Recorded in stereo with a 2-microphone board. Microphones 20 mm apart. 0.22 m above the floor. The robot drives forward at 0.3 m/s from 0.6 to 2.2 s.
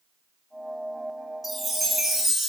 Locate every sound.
1.4 s a chime: 5° right (ahead or behind), 1.0 m